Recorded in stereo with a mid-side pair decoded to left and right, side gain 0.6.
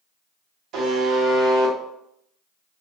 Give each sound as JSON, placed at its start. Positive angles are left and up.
{"t": 0.7, "sound": "a buzzer", "azimuth_deg": -65, "distance_m": 0.8}